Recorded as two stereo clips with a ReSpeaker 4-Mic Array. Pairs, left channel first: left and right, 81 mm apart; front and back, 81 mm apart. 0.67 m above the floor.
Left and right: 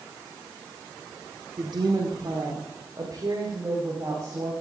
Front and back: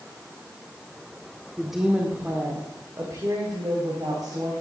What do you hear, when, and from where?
1.6 s a woman speaking: 90° right, 1.6 m; by 4.5 s 140° right, 4 m